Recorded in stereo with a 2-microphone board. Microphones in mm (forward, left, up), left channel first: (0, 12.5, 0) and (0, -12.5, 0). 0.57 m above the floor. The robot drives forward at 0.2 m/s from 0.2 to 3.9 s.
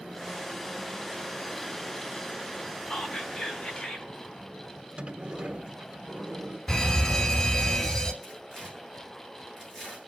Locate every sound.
2.9 s whispering: 30° left (ahead or behind), 3.5 m
5.0 s a sliding door: 55° right (ahead or behind), 1.7 m
6.7 s a fire alarm: 20° left (ahead or behind), 2 m
8.2 s tearing paper: centre (ahead or behind), 7 m